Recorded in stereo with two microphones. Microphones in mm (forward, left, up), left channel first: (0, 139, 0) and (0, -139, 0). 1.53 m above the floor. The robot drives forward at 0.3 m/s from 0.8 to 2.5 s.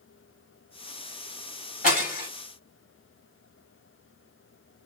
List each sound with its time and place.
1.8 s breaking glass: 30° left (ahead or behind), 3 m